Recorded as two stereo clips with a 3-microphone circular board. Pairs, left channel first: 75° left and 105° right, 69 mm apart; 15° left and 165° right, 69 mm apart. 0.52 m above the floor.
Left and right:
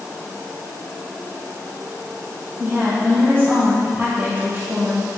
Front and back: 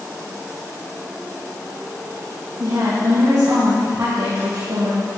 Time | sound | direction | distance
2.6 | a woman speaking | 155° right | 3.5 m